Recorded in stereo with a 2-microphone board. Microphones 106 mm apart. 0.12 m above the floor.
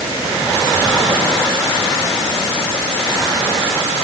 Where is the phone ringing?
I don't hear a phone ringing.